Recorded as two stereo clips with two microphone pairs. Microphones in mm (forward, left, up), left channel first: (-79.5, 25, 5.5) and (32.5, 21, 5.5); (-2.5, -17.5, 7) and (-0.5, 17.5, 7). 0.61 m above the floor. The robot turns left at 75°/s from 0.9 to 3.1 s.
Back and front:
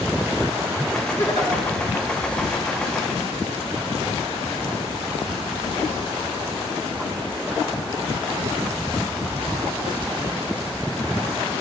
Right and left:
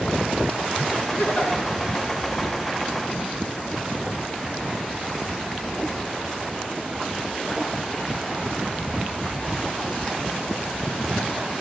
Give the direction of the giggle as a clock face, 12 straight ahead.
4 o'clock.